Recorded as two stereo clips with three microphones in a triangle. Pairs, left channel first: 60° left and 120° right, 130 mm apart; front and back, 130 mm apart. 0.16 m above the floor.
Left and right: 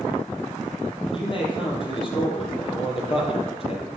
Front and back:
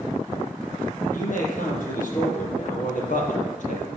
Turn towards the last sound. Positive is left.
turn(degrees=15)